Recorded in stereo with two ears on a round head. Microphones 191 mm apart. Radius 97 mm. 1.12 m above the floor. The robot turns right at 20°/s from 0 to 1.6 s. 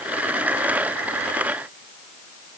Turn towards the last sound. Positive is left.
No sound to turn to.